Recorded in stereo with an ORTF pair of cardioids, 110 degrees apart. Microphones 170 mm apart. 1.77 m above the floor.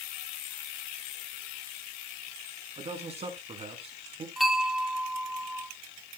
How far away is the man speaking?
About 3.5 m.